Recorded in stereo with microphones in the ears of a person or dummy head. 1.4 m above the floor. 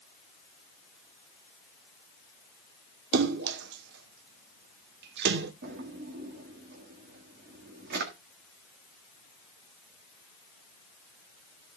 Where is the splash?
70° right (ahead or behind), 1.0 m.